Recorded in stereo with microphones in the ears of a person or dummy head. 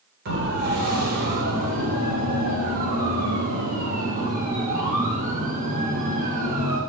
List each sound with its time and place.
0.2 s a siren: 60° right (ahead or behind), 6 m; by 6.8 s 40° right (ahead or behind), 8.5 m